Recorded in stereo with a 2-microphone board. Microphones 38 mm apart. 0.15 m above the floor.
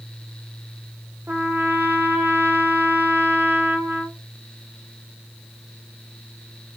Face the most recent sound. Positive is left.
turn(degrees=-65)  # may be behind; listen again after turning